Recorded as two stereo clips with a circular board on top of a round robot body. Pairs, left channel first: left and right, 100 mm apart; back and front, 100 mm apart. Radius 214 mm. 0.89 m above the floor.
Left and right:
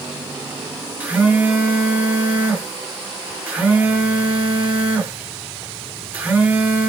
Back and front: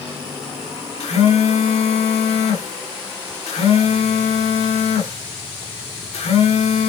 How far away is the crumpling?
I don't hear crumpling.